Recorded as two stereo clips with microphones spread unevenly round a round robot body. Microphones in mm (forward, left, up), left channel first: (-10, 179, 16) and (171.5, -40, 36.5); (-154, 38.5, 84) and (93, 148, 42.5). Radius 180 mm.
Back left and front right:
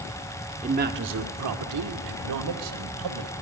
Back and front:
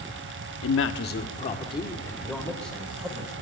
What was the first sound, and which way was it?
A man speaking, 120° right.